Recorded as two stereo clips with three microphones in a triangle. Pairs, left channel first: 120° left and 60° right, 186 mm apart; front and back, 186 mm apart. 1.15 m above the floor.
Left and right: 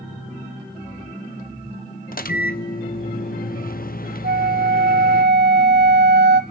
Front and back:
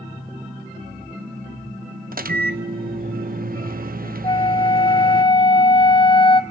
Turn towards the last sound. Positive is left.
turn(degrees=-60)